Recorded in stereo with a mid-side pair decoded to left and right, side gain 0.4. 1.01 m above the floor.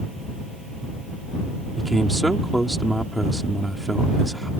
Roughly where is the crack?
No crack in this recording.